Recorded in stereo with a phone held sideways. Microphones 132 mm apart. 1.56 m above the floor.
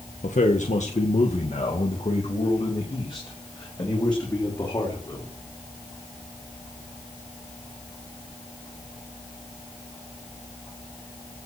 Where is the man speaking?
80° left, 1.8 m; by 5.3 s 30° left (ahead or behind), 5 m.